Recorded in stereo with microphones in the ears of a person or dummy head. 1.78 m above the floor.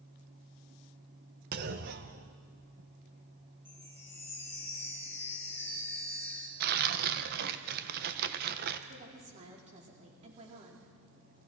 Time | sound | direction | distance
1.5 | a clunk | 55° right (ahead or behind) | 1.1 m
3.6 | a chime | 10° left (ahead or behind) | 3 m
6.6 | tearing paper | 60° right (ahead or behind) | 1.4 m
8.9 | a woman speaking | 40° right (ahead or behind) | 4.5 m